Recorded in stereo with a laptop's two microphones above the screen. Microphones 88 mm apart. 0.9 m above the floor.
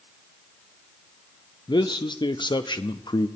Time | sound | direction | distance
1.7 | a man speaking | 60° left (ahead or behind) | 0.7 m